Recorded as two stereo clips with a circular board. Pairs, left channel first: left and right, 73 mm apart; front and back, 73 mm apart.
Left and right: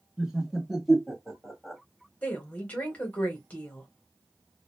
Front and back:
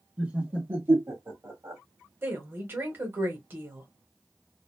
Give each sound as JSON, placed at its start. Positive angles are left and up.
{"t": 0.2, "sound": "laughter", "azimuth_deg": -150, "distance_m": 1.3}
{"t": 2.2, "sound": "a woman speaking", "azimuth_deg": 145, "distance_m": 1.2}